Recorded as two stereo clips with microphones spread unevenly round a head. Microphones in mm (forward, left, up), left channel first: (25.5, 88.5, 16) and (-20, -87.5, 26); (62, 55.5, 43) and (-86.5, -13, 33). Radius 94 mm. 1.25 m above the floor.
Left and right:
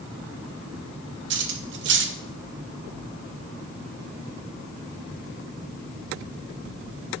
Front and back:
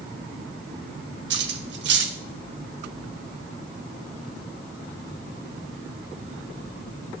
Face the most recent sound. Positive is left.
turn(degrees=-125)